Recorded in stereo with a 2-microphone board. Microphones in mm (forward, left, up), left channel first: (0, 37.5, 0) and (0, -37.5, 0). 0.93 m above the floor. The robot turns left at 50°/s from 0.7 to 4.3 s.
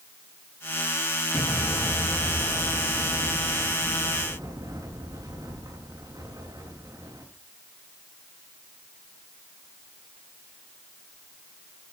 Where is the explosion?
25° left, 9.5 m; by 7.2 s 125° right, 9.5 m.